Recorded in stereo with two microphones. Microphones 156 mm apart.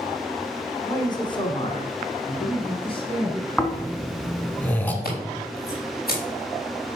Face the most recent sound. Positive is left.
turn(degrees=80)